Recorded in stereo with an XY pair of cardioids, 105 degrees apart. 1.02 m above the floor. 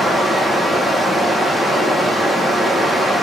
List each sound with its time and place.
0.0 s running water: 10° left, 1.3 m